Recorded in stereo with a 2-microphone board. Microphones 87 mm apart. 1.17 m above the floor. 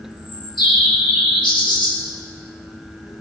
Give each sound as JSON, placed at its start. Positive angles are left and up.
{"t": 0.1, "sound": "a bird", "side_deg": 60, "distance_m": 1.6}